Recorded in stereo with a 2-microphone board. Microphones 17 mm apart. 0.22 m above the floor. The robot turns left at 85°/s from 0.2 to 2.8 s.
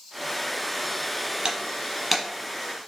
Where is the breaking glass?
50° right (ahead or behind), 1.3 m; by 2.2 s 5° left (ahead or behind), 1.3 m.